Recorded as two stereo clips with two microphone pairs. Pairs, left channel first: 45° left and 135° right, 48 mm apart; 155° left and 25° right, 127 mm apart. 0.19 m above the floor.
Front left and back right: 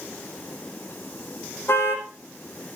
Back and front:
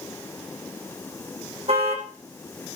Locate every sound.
1.7 s a car horn: 10° left, 5.5 m